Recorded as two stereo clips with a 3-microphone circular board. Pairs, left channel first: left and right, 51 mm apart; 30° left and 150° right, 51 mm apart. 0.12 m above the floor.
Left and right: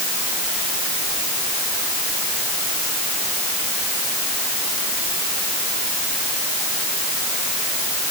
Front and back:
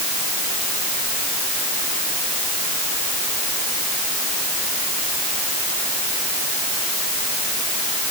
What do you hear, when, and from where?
Only background noise.